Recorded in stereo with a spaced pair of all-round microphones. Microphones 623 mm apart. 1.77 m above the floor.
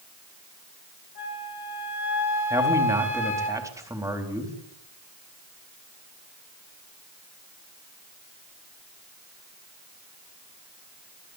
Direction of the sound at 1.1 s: 70° left (ahead or behind).